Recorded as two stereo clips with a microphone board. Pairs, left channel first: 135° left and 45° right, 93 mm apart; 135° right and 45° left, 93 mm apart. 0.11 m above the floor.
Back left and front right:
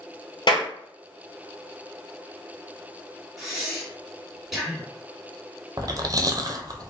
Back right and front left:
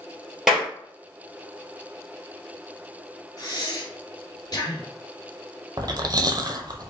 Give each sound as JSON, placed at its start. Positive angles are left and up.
{"t": 0.5, "sound": "a clap", "azimuth_deg": 130, "distance_m": 1.9}
{"t": 3.4, "sound": "breathing", "azimuth_deg": -130, "distance_m": 1.9}
{"t": 5.8, "sound": "chewing", "azimuth_deg": 0, "distance_m": 0.6}